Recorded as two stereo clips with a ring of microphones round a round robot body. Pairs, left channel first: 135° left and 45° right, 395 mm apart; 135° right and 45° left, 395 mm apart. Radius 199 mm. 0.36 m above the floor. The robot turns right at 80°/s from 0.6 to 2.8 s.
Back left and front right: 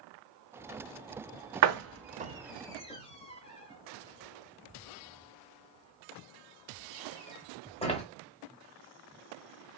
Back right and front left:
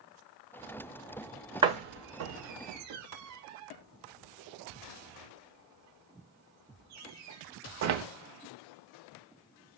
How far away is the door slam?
About 0.8 m.